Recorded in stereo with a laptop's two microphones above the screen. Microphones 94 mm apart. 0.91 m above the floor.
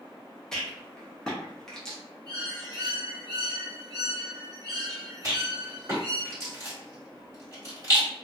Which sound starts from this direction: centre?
A rattle, at 0.5 s.